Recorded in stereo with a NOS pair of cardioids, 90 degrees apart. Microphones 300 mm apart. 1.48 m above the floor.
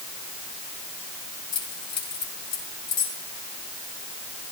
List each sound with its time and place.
1.5 s keys jangling: 65° left, 8 m